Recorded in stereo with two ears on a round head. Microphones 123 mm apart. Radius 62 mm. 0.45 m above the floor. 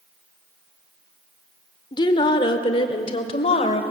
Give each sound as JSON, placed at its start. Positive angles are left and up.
{"t": 1.9, "sound": "a woman speaking", "side_deg": 35, "distance_m": 1.4}